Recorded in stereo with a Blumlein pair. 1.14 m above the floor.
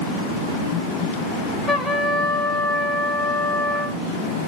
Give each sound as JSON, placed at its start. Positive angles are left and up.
{"t": 1.7, "sound": "a trumpet", "azimuth_deg": 0, "distance_m": 1.0}